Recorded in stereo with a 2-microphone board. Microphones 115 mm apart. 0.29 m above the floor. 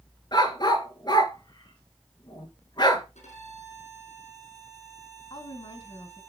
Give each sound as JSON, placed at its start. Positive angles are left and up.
{"t": 0.3, "sound": "a dog barking", "side_deg": 40, "distance_m": 1.3}
{"t": 3.1, "sound": "a violin", "side_deg": 80, "distance_m": 4.0}
{"t": 5.3, "sound": "a woman speaking", "side_deg": 45, "distance_m": 1.9}